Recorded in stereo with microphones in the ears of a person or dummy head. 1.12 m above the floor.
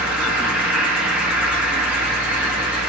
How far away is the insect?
About 1.0 m.